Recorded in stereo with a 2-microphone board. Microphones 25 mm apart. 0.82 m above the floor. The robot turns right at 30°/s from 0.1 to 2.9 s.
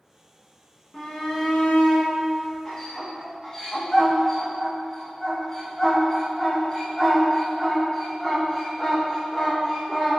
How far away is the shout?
About 0.7 m.